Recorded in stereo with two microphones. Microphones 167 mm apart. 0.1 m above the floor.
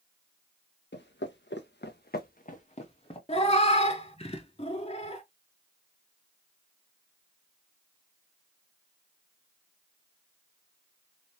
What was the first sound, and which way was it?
Footsteps, 75° left (ahead or behind).